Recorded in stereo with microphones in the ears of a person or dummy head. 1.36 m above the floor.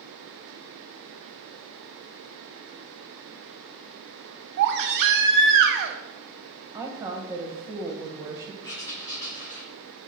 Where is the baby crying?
55° right (ahead or behind), 0.7 m.